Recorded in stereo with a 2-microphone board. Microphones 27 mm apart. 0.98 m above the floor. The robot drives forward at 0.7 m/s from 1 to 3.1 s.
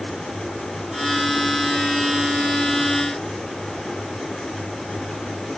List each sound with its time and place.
Only background noise.